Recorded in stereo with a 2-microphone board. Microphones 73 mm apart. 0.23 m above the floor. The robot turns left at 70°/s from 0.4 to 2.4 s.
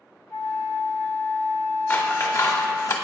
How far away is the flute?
About 1.4 m.